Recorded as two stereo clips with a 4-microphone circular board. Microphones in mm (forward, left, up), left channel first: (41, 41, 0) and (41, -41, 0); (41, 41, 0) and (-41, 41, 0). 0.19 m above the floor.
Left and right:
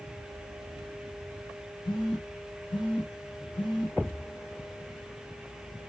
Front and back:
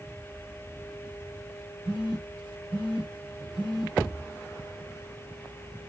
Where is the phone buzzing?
100° left, 4 m.